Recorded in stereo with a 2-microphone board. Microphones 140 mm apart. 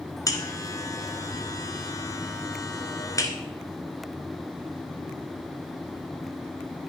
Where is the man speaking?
I don't hear a man speaking.